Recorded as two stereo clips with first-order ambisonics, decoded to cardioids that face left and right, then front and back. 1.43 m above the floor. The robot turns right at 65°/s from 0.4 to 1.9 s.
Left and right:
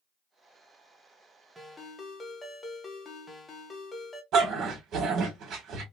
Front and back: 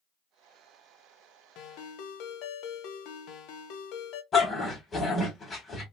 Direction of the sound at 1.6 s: 10° right.